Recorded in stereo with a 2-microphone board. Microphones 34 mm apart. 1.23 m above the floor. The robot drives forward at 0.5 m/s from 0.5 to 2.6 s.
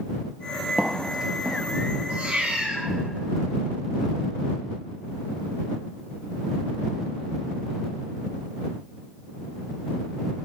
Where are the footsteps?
15° right (ahead or behind), 1.3 m.